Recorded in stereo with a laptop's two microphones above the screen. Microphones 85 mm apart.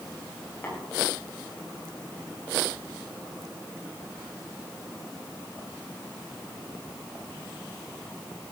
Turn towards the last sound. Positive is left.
turn(degrees=25)  # may be behind; listen again after turning